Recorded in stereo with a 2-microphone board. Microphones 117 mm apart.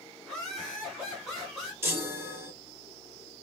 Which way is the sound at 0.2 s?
Centre (ahead or behind).